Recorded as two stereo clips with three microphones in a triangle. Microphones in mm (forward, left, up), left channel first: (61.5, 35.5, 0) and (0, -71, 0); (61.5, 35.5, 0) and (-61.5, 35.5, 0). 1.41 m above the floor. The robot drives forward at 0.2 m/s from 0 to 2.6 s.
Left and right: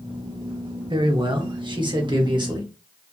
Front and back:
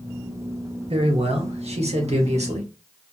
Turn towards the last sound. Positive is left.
turn(degrees=-165)